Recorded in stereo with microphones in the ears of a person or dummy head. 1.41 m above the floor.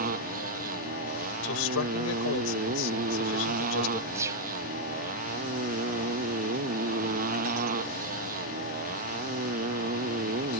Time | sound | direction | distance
0.0 | a motorcycle | 45° right (ahead or behind) | ?
1.4 | a man speaking | 80° left | ?
4.1 | a gunshot | 15° right (ahead or behind) | ?